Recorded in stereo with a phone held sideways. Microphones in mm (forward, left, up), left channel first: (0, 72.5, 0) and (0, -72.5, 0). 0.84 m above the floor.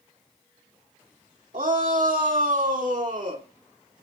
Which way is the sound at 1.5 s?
65° right (ahead or behind).